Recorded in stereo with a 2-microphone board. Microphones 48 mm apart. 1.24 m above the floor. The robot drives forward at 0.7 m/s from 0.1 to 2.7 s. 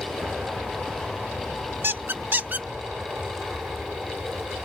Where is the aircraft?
30° right (ahead or behind).